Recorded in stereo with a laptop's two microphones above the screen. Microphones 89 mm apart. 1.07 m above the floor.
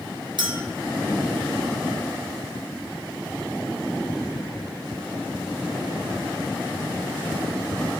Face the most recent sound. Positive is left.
turn(degrees=-60)  # may be behind; listen again after turning